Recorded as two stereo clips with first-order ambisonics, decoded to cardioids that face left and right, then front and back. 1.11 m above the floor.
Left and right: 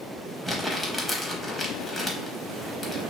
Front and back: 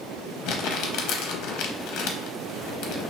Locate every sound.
0.5 s crumpling: 5° right, 0.7 m